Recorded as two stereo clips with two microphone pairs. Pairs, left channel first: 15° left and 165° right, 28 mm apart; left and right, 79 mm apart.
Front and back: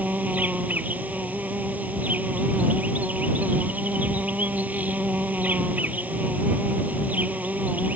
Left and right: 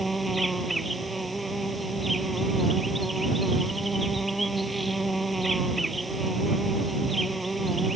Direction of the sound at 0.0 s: Straight behind.